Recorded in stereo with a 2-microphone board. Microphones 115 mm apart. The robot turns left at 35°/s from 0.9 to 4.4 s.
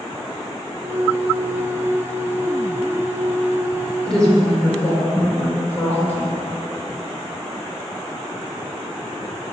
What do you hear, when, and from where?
4.1 s a woman speaking: centre (ahead or behind), 3.5 m; by 6.3 s 15° left (ahead or behind), 3.5 m